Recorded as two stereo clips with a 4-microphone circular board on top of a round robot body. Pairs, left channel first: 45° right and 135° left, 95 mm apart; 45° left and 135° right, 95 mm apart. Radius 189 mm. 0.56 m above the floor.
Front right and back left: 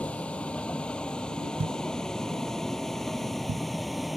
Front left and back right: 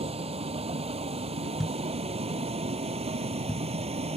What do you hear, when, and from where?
0.0 s a vehicle: 125° right; by 4.2 s 135° right
1.6 s a thud: 130° left